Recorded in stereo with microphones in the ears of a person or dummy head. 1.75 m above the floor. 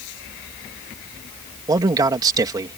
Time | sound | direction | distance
1.7 | a man speaking | 20° right (ahead or behind) | ?